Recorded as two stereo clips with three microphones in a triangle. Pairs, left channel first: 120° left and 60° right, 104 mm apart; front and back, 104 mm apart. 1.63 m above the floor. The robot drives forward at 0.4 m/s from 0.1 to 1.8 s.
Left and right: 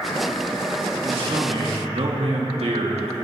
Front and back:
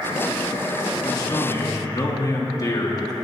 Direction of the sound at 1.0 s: 50° right.